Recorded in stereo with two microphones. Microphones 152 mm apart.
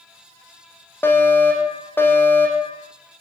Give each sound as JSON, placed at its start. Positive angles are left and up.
{"t": 1.0, "sound": "a fire alarm", "side_deg": 15, "distance_m": 7.0}